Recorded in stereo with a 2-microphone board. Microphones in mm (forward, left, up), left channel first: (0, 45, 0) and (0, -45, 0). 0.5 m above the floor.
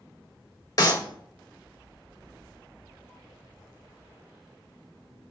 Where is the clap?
50° left (ahead or behind), 2.0 m.